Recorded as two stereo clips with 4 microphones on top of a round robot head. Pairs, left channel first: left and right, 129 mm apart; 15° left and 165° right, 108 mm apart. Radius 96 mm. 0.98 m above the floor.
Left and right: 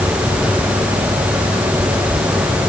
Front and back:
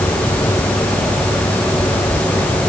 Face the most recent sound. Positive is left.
No sound to turn to.